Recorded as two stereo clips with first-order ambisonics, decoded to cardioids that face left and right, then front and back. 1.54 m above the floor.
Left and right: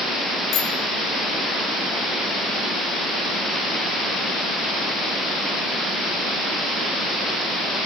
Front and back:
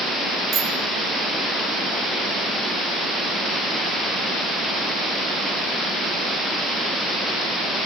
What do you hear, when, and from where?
0.5 s a bicycle bell: 125° left, 5 m